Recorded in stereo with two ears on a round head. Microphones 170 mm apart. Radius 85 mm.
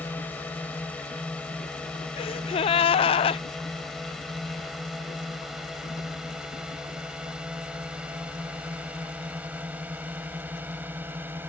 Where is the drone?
10° left (ahead or behind); by 11.5 s 10° right (ahead or behind).